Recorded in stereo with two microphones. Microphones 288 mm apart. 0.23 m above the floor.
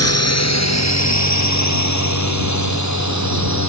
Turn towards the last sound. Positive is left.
turn(degrees=80)